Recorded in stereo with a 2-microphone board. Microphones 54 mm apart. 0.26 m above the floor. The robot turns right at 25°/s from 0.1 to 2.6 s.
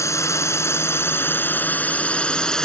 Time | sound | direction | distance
0.0 | a drone | 105° left | ?